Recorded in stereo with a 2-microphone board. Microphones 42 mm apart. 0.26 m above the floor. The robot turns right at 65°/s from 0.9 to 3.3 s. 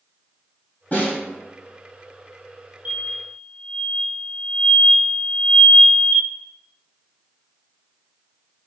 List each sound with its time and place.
0.9 s a snare drum: 40° left (ahead or behind), 1.5 m; by 1.2 s 35° left (ahead or behind), 1.5 m
2.9 s an explosion: 40° right (ahead or behind), 0.8 m; by 6.3 s 45° right (ahead or behind), 0.8 m